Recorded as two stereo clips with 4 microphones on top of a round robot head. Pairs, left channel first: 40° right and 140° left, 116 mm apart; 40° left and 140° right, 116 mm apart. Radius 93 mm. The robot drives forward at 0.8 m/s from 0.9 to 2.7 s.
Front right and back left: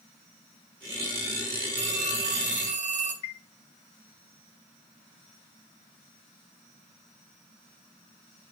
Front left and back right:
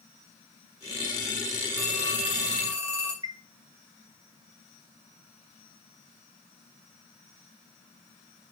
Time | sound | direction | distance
1.8 | a phone ringing | 145° left | 4 m
3.2 | a chime | 80° right | 0.7 m